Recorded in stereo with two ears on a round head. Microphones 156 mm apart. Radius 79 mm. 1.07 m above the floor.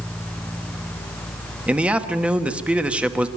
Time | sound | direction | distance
1.7 | a man speaking | 10° right (ahead or behind) | 1.2 m